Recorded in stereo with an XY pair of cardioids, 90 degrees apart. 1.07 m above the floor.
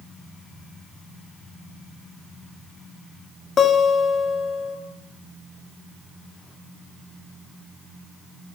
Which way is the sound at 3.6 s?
50° left.